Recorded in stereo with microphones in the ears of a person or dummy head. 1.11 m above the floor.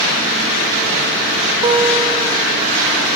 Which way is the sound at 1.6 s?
20° right (ahead or behind).